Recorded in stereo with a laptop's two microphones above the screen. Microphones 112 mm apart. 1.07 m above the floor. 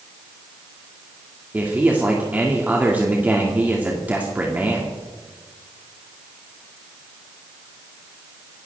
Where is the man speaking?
15° right (ahead or behind), 2 m.